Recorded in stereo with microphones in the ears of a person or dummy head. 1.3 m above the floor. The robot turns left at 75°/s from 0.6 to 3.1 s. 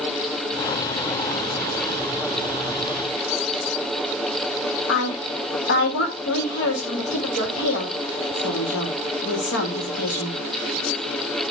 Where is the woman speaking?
70° left (ahead or behind), 1.9 m.